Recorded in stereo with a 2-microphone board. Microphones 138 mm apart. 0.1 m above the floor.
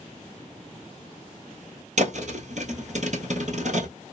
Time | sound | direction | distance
2.0 | a thud | 60° right (ahead or behind) | 1.2 m